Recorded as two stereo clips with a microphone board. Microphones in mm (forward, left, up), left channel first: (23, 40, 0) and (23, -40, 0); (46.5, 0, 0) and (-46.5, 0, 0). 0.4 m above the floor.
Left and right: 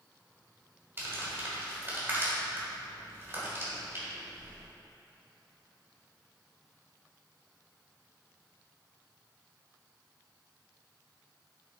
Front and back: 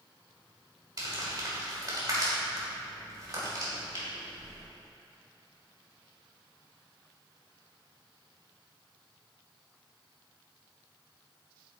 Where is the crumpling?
145° right, 2.5 m.